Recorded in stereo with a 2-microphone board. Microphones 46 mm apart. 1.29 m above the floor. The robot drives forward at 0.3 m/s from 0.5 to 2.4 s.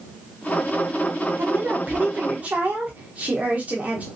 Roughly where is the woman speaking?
Right.